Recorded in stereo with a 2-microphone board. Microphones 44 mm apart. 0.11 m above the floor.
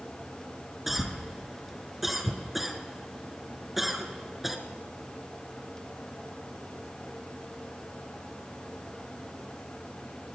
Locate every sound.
0.9 s a cough: 5° right (ahead or behind), 1.3 m